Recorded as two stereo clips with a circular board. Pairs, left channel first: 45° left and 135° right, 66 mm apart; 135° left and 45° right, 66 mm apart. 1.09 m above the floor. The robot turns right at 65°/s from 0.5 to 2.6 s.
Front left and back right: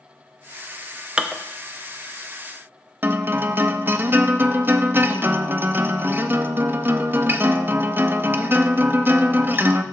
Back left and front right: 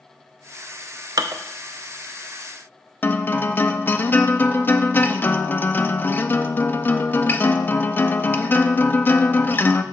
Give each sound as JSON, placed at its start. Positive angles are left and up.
{"t": 1.2, "sound": "dishes clattering", "azimuth_deg": -60, "distance_m": 0.6}
{"t": 3.0, "sound": "a guitar", "azimuth_deg": 180, "distance_m": 0.5}